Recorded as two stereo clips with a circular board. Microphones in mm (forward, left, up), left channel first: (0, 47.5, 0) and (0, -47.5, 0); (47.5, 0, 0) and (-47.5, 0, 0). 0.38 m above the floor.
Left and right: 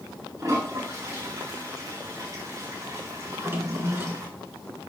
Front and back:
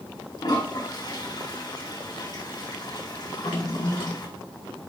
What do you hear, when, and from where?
0.4 s a toilet flushing: 35° right, 5.5 m
3.3 s a drawer: 25° right, 3 m